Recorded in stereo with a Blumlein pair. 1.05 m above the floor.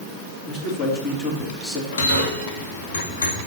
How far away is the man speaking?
About 2.5 m.